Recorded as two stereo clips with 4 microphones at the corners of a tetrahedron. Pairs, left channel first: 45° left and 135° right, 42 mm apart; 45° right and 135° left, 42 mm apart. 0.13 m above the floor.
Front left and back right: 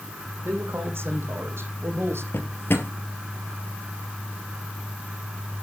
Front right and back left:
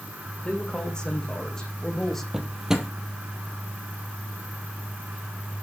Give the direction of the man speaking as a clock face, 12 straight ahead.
4 o'clock.